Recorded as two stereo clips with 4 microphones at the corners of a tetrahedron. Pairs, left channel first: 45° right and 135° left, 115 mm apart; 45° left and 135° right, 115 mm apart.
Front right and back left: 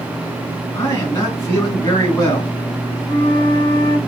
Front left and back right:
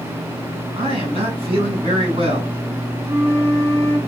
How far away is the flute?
About 1.6 m.